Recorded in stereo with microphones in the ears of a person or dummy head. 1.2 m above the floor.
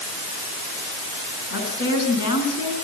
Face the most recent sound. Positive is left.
turn(degrees=80)